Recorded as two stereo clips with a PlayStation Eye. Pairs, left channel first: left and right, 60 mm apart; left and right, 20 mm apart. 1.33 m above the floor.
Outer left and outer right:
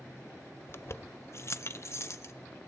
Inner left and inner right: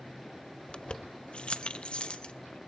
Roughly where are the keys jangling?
Left.